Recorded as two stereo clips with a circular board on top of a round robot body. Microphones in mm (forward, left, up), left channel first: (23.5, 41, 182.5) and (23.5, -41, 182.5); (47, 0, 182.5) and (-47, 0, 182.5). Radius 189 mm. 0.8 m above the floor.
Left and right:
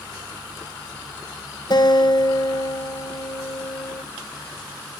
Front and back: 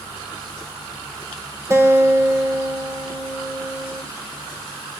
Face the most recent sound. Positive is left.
turn(degrees=120)